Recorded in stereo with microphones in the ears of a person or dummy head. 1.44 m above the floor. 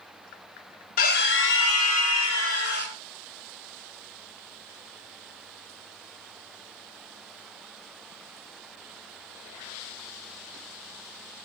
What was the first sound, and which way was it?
A scream, 55° left (ahead or behind).